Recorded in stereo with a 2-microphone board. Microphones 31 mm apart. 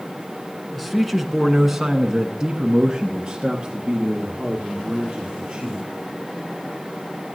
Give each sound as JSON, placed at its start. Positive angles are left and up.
{"t": 0.8, "sound": "a man speaking", "side_deg": 5, "distance_m": 1.4}